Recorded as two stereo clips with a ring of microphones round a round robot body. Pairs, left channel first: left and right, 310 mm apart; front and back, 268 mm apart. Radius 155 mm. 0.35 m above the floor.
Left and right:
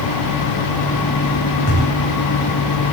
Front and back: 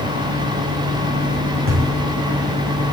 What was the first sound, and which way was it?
A thud, 135° left.